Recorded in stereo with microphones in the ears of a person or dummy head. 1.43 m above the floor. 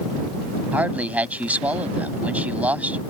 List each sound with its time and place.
0.7 s a man speaking: 10° right (ahead or behind)